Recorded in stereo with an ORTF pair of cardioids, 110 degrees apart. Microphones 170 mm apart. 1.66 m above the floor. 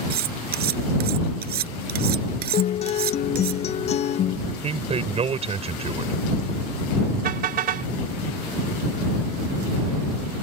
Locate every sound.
0.1 s cutlery clinking: 65° right
2.5 s a guitar: 40° left
4.5 s a man speaking: 40° right
7.2 s a car horn: 60° right